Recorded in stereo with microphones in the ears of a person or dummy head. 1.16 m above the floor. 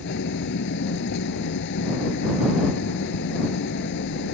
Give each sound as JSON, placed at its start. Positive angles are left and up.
{"t": 0.0, "sound": "an engine running", "side_deg": 65}